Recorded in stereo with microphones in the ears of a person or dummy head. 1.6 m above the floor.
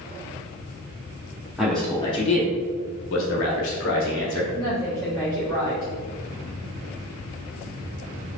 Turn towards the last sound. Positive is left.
turn(degrees=-25)  # may be behind; listen again after turning